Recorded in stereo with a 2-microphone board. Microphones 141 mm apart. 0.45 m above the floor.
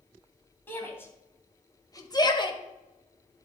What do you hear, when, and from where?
0.7 s a shout: 15° left (ahead or behind), 2.5 m; by 2.6 s 40° left (ahead or behind), 1.3 m